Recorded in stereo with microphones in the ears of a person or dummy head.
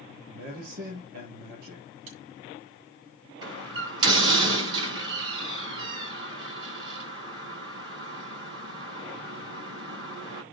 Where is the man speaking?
55° right (ahead or behind), 5 m.